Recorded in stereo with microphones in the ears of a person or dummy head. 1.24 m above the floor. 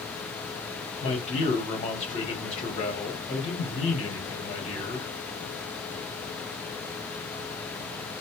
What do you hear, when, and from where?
1.0 s a man speaking: 30° left (ahead or behind), 1.0 m